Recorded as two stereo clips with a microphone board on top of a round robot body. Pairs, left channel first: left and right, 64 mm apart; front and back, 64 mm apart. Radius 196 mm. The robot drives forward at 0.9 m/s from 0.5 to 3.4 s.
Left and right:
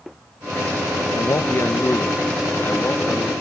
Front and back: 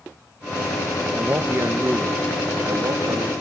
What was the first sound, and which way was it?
A man speaking, 115° left.